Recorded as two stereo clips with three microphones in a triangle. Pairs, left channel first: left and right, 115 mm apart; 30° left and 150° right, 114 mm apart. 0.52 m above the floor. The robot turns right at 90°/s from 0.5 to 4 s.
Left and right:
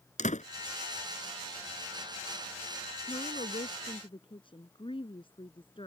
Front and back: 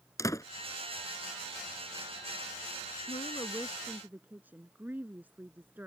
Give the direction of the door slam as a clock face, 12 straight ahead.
9 o'clock.